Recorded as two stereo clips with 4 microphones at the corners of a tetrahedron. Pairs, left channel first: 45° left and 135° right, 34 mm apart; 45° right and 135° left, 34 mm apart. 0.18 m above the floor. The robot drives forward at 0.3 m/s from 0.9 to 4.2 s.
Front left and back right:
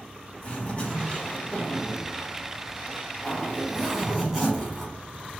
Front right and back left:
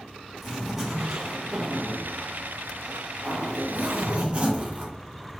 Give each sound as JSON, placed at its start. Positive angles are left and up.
{"t": 0.4, "sound": "a zipper", "azimuth_deg": 55, "distance_m": 1.0}